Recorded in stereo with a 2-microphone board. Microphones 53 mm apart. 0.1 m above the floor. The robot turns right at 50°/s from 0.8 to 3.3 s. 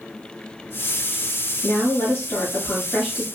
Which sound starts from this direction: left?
A woman speaking, at 1.6 s.